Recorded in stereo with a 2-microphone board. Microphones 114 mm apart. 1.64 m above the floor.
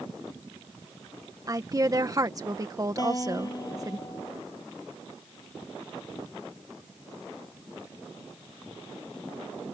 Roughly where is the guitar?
Left.